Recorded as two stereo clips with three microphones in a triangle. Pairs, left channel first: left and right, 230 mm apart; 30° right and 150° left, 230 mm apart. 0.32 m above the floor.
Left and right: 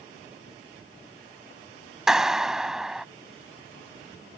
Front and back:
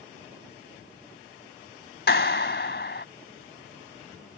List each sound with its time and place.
2.1 s a clap: 5° right